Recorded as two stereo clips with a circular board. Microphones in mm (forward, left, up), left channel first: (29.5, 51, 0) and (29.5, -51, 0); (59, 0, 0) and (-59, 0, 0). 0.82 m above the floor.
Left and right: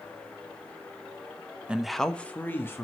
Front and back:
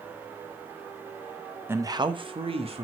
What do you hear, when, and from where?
1.7 s a man speaking: 150° right, 0.7 m; by 2.8 s 155° left, 1.7 m